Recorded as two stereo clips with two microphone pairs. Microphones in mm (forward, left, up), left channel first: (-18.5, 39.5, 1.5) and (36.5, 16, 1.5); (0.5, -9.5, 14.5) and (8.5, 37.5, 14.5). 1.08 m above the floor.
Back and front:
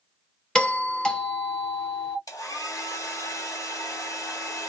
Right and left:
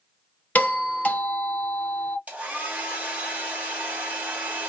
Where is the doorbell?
130° right, 1.1 m.